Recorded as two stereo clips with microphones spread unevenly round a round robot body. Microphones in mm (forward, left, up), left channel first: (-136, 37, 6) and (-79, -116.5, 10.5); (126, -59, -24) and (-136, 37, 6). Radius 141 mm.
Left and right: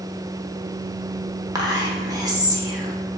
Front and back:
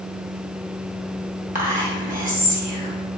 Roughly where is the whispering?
Behind right.